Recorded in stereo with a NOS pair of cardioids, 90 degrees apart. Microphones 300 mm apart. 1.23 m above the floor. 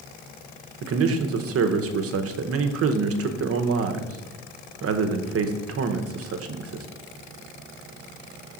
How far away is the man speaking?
About 0.8 m.